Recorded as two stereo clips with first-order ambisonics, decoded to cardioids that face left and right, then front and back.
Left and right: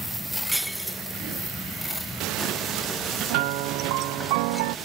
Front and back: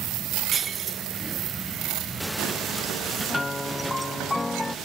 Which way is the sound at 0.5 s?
175° right.